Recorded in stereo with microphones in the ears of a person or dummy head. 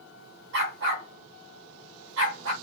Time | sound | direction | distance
0.5 | a dog barking | 60° right (ahead or behind) | 3 m